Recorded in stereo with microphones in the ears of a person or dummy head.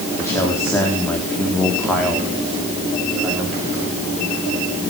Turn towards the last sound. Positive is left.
turn(degrees=-10)  # may be behind; listen again after turning